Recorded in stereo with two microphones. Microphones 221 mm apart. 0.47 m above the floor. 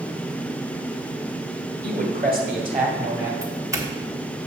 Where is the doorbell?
15° right (ahead or behind), 1.2 m.